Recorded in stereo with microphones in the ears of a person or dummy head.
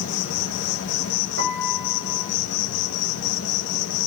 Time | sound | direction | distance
0.0 | an insect | 70° left (ahead or behind) | 2.5 m
1.4 | a piano | 65° right (ahead or behind) | 5 m